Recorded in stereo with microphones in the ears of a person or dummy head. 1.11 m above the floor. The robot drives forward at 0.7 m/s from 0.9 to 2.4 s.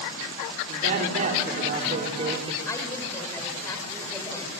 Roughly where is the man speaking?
Right.